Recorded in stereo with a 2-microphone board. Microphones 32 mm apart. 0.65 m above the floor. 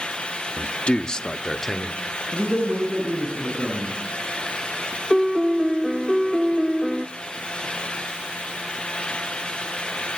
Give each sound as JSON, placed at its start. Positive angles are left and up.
{"t": 0.6, "sound": "a man speaking", "side_deg": 45, "distance_m": 1.0}
{"t": 2.3, "sound": "a man speaking", "side_deg": -40, "distance_m": 8.5}
{"t": 5.1, "sound": "a piano", "side_deg": 0, "distance_m": 0.8}